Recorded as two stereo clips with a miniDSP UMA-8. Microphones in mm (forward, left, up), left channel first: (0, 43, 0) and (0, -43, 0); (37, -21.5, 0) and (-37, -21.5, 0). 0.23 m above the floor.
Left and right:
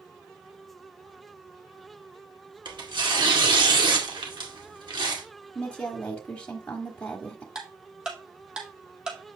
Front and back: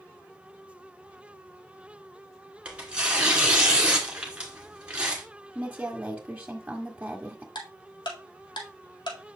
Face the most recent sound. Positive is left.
turn(degrees=-10)